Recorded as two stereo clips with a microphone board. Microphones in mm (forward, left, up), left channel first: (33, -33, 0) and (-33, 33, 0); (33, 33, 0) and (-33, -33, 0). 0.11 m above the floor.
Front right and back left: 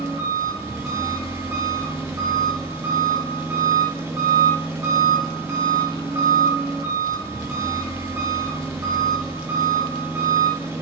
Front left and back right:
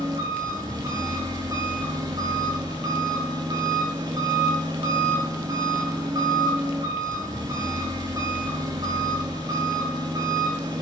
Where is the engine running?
175° right, 5 m.